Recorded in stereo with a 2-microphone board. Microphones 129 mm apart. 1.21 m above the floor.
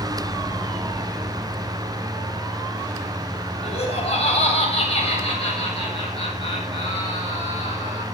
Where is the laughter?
50° left (ahead or behind), 7.5 m; by 8.0 s 45° left (ahead or behind), 9.5 m.